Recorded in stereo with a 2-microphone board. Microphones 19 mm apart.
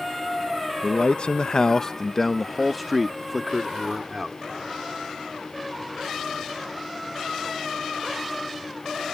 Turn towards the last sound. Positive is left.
turn(degrees=-20)  # may be behind; listen again after turning